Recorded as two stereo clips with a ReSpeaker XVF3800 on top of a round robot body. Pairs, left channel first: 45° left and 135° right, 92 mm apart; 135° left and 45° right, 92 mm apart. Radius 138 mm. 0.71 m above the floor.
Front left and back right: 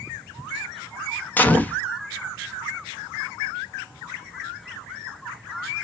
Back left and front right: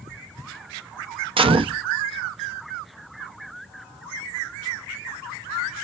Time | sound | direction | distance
1.4 | a gunshot | 25° right | 0.6 m